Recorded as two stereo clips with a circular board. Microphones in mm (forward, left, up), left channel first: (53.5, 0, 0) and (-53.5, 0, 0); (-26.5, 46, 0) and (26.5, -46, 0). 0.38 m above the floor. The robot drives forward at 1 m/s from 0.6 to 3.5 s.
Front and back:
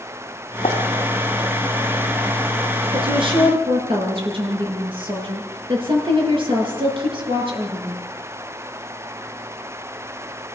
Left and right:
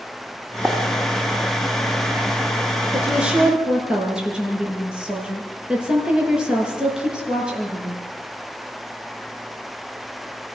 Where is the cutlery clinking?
No cutlery clinking in this recording.